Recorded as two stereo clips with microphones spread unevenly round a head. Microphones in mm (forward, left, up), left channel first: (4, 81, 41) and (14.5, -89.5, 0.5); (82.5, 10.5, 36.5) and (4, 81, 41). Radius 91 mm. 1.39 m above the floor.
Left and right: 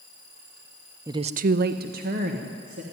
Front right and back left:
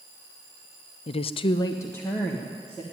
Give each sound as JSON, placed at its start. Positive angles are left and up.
{"t": 1.1, "sound": "a woman speaking", "azimuth_deg": -25, "distance_m": 0.5}